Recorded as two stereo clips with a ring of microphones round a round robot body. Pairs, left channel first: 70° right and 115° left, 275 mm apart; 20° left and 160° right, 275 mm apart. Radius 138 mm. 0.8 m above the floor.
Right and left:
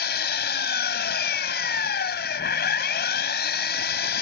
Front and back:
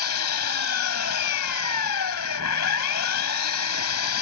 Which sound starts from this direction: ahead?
An engine running, at 0.0 s.